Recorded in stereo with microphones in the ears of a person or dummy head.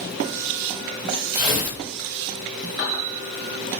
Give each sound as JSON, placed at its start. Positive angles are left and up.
{"t": 1.3, "sound": "tearing paper", "side_deg": -25, "distance_m": 1.3}